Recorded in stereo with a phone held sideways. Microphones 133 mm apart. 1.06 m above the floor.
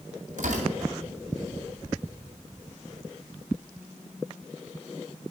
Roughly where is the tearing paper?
Right.